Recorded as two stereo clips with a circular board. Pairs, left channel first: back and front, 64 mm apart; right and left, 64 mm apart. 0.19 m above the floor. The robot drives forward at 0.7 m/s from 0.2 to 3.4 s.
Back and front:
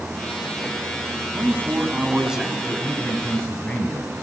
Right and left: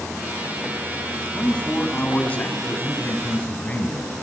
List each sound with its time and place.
1.3 s a man speaking: 25° right, 1.4 m; by 4.2 s 140° right, 1.2 m